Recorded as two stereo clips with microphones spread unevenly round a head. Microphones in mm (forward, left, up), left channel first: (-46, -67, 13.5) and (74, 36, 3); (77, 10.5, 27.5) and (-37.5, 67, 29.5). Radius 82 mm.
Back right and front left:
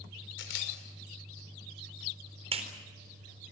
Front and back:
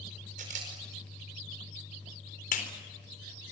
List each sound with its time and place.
0.4 s a camera shutter: 165° right, 5.5 m
2.5 s a clap: 15° right, 4 m